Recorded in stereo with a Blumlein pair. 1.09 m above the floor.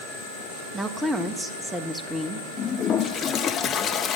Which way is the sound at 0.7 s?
10° right.